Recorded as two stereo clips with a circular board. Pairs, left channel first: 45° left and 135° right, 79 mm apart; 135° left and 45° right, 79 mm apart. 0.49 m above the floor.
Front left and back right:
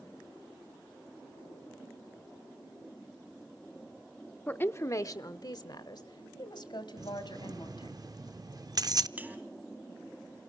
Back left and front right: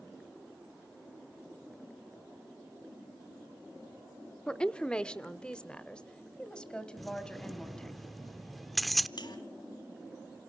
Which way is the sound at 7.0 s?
135° right.